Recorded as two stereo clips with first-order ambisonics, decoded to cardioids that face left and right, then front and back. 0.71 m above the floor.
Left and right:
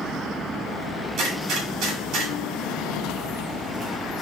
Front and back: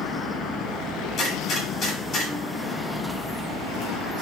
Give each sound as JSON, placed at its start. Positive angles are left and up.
{"t": 1.2, "sound": "a gunshot", "azimuth_deg": -55, "distance_m": 2.0}